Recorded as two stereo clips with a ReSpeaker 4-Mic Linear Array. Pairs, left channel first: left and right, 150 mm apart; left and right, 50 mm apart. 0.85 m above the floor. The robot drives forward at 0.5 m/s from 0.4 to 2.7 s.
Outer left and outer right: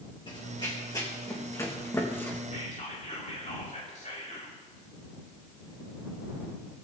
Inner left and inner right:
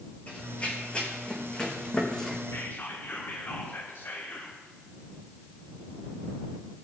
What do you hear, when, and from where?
0.3 s running footsteps: 35° left (ahead or behind), 3.5 m; by 2.4 s 15° left (ahead or behind), 3 m
2.5 s whispering: 60° left (ahead or behind), 2.5 m